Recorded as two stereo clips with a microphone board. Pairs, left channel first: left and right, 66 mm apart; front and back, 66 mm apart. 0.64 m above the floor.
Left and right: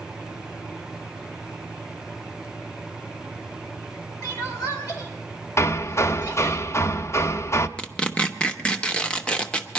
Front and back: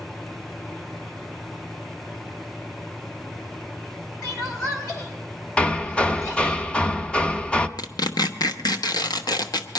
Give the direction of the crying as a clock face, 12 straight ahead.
10 o'clock.